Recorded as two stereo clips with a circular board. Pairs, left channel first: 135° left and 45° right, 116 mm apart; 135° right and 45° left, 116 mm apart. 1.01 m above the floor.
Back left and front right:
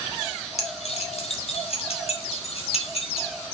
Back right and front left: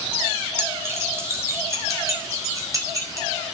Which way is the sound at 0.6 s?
115° left.